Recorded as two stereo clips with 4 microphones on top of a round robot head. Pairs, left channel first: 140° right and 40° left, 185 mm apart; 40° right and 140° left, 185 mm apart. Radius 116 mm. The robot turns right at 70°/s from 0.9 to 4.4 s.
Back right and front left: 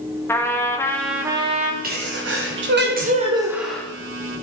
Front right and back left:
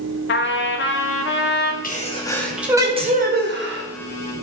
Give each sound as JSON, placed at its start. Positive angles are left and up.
{"t": 0.3, "sound": "a trumpet", "azimuth_deg": -60, "distance_m": 1.4}
{"t": 1.8, "sound": "a sneeze", "azimuth_deg": 0, "distance_m": 2.5}